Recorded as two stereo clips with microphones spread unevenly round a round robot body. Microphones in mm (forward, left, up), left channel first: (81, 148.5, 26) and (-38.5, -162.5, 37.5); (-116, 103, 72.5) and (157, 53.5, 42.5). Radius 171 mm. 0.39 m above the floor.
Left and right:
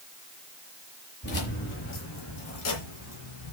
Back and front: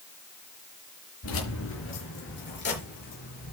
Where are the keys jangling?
130° left, 6 m; by 3.5 s 110° left, 6 m.